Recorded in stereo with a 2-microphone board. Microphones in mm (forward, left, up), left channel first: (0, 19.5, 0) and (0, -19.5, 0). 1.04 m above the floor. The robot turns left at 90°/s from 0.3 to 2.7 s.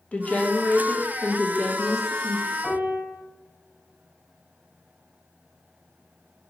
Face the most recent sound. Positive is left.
turn(degrees=10)  # may be behind; listen again after turning